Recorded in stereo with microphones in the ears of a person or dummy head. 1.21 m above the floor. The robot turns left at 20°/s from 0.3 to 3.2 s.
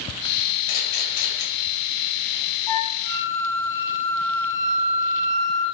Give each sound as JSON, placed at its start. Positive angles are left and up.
{"t": 0.7, "sound": "a camera shutter", "side_deg": 65, "distance_m": 6.5}
{"t": 2.7, "sound": "a flute", "side_deg": 30, "distance_m": 4.0}